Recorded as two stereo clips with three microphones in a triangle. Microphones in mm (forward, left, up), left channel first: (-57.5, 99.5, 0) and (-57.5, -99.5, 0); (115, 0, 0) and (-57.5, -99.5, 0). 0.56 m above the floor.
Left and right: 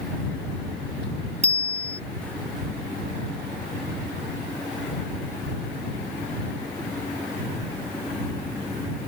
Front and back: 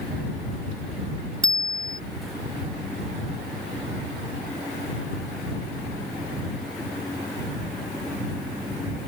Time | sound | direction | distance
1.4 | a bicycle bell | 145° right | ?